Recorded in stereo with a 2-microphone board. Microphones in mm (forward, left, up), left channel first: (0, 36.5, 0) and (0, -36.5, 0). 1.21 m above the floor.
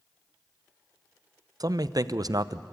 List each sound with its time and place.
1.6 s a man speaking: 55° right (ahead or behind), 0.5 m